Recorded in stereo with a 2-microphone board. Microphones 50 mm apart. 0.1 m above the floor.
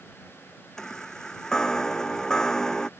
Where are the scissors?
I don't hear scissors.